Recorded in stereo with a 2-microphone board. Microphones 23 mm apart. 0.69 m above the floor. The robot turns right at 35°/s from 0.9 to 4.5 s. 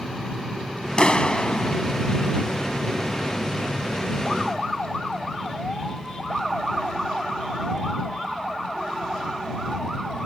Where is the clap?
35° left (ahead or behind); by 1.8 s 65° left (ahead or behind).